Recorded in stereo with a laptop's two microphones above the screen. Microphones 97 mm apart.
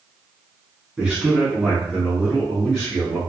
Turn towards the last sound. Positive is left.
turn(degrees=5)  # may be behind; listen again after turning